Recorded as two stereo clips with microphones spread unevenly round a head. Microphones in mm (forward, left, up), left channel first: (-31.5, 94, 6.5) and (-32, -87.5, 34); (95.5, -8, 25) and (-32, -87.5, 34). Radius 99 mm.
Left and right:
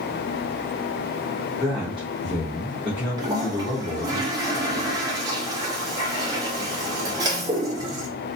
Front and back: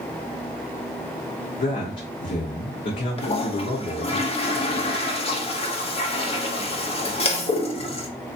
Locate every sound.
1.6 s a man speaking: straight ahead, 1.2 m
3.2 s a toilet flushing: 20° right, 1.1 m